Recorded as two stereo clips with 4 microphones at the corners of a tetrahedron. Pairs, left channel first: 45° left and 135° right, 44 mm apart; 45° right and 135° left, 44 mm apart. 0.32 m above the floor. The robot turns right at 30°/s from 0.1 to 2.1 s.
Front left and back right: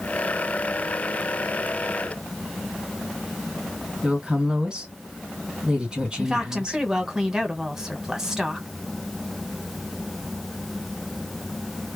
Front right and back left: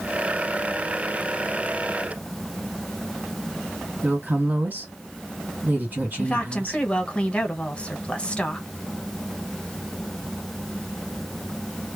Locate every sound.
4.0 s a woman speaking: 155° left, 2 m
6.2 s a woman speaking: 75° right, 0.9 m